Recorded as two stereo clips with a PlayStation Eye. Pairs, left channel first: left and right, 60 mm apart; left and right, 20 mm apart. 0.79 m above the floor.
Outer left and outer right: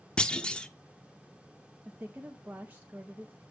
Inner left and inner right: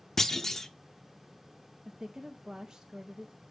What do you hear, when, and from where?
0.2 s a clunk: 15° left (ahead or behind), 0.5 m
1.9 s a woman speaking: 30° right (ahead or behind), 0.7 m